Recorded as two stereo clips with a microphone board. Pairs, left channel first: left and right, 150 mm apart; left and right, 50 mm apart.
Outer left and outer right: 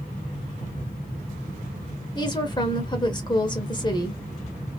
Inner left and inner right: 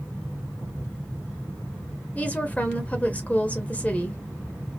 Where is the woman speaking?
30° left (ahead or behind), 0.9 m.